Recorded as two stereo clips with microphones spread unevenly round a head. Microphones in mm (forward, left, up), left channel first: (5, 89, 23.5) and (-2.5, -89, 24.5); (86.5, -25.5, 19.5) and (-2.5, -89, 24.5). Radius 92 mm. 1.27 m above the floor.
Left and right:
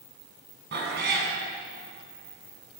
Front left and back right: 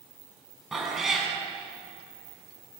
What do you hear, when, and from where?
0.7 s a cat meowing: 60° right, 7.5 m